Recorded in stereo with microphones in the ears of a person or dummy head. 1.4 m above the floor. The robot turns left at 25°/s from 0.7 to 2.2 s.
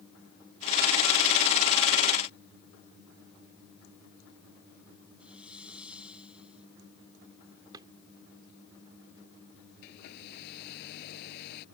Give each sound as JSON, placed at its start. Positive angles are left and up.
{"t": 5.2, "sound": "a hiss", "side_deg": -5}
{"t": 7.7, "sound": "a drawer", "side_deg": -20}
{"t": 9.8, "sound": "a hair dryer", "side_deg": 60}